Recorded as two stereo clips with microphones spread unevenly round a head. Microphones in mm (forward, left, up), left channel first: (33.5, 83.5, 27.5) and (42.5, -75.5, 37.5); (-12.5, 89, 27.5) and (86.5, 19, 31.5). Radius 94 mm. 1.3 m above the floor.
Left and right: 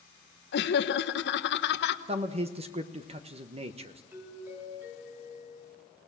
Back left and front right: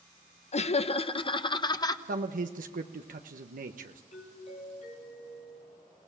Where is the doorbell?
165° right, 4 m.